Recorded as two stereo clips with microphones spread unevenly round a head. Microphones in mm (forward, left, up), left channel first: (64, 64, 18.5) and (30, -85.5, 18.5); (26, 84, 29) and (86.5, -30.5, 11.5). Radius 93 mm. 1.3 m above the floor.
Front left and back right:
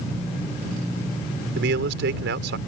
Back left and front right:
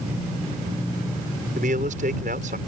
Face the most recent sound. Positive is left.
turn(degrees=-110)